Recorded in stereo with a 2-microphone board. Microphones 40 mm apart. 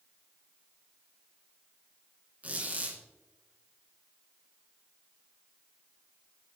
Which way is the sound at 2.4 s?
40° right (ahead or behind).